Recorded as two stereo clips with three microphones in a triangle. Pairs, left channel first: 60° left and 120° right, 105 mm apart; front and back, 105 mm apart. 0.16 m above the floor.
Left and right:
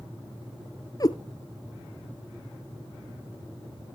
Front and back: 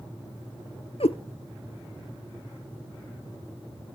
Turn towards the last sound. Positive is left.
turn(degrees=10)